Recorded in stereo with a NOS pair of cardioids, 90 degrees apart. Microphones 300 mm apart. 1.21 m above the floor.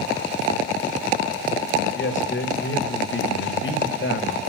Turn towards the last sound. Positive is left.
turn(degrees=40)